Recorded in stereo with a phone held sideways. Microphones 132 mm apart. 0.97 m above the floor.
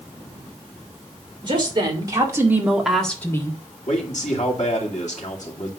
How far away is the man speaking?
About 2.5 m.